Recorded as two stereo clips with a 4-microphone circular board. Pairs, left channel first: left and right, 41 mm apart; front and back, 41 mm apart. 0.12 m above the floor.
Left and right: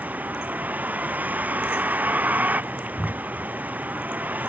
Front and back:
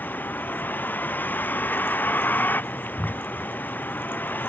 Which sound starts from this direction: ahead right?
A vehicle, at 0.0 s.